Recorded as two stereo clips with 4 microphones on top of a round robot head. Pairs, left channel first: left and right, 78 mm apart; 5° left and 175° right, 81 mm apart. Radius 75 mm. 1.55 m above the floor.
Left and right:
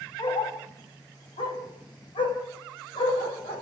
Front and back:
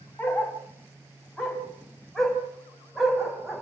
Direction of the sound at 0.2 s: 70° left.